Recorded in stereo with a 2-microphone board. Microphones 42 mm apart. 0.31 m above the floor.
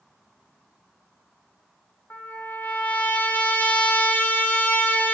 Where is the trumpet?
45° left (ahead or behind), 1.2 m.